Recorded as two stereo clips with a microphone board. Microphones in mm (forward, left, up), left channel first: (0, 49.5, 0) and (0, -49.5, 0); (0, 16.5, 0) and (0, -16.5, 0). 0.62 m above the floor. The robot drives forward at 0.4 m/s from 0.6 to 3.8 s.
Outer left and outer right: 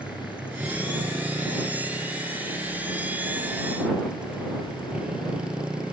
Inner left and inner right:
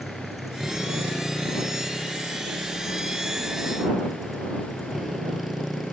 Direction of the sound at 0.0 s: 10° right (ahead or behind).